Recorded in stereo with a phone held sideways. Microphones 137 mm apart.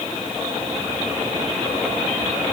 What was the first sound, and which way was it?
Only background noise.